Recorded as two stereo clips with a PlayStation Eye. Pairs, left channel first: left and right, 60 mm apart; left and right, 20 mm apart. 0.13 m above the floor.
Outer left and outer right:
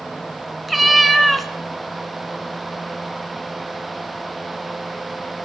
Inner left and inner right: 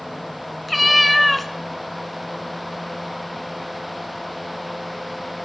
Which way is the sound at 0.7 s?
Centre (ahead or behind).